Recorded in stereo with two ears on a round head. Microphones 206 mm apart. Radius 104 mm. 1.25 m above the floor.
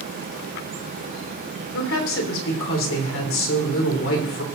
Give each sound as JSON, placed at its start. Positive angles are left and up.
{"t": 1.7, "sound": "a woman speaking", "side_deg": 65, "distance_m": 3.5}